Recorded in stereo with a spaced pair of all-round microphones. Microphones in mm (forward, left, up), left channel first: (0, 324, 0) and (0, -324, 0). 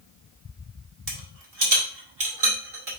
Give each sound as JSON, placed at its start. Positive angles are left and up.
{"t": 1.1, "sound": "a rattle", "side_deg": -60, "distance_m": 2.5}